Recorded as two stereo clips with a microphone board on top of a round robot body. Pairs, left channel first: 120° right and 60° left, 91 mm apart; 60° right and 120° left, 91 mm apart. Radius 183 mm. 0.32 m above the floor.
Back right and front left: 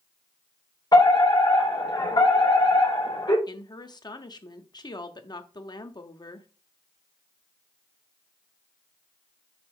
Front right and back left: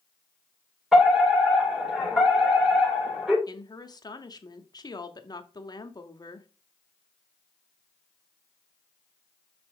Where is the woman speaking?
95° right, 1.3 m.